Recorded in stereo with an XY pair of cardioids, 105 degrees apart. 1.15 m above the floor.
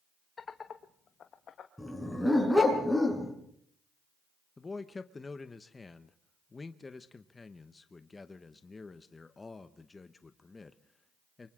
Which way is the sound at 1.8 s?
5° left.